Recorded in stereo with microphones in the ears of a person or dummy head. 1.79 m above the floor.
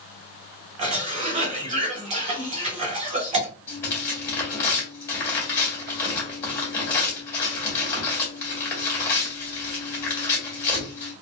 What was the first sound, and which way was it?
A cough, 30° right (ahead or behind).